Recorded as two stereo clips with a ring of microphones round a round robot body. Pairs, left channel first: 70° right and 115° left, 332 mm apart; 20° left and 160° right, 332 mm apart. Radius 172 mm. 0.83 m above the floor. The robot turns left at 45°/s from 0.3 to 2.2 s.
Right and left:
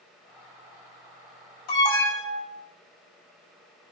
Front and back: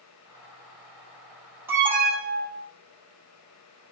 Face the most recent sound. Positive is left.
turn(degrees=-95)